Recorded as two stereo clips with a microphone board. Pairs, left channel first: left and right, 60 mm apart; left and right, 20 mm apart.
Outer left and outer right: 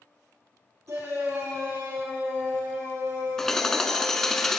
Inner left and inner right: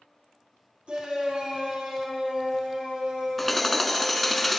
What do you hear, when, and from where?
0.9 s a shout: 60° right (ahead or behind), 2.5 m
3.4 s hammering: 5° left (ahead or behind), 0.6 m